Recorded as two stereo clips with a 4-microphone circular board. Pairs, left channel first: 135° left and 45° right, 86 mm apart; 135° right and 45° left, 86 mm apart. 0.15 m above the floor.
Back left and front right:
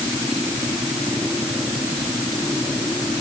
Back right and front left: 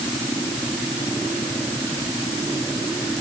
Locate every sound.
Only background noise.